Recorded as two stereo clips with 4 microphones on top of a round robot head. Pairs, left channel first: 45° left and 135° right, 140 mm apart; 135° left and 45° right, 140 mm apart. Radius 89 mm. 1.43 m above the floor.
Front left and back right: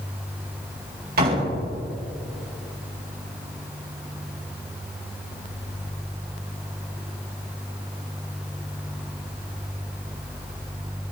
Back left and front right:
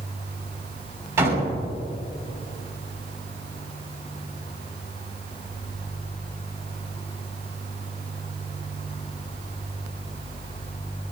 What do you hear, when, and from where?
1.2 s a door slam: 115° right, 5.5 m